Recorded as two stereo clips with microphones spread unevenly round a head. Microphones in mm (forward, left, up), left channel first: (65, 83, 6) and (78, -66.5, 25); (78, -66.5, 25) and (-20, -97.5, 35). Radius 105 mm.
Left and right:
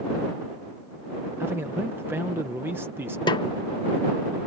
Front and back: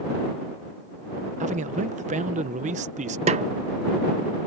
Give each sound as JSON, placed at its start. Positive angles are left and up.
{"t": 1.4, "sound": "a man speaking", "azimuth_deg": -165}
{"t": 3.3, "sound": "a snare drum", "azimuth_deg": 160}